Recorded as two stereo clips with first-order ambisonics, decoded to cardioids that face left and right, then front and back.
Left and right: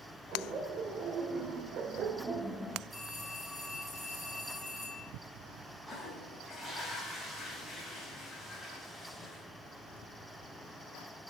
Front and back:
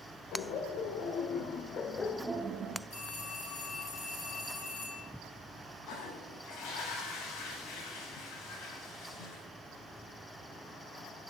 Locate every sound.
0.3 s laughter: 35° right, 3 m; by 2.8 s 175° left, 1.0 m
2.9 s a phone ringing: 20° right, 5.5 m
5.9 s a toilet flushing: straight ahead, 4 m